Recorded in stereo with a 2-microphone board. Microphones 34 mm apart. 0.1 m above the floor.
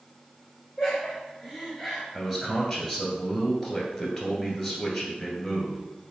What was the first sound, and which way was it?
Laughter, 5° right (ahead or behind).